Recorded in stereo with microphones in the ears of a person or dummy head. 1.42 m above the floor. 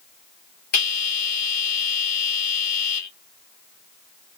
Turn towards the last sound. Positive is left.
turn(degrees=70)  # may be behind; listen again after turning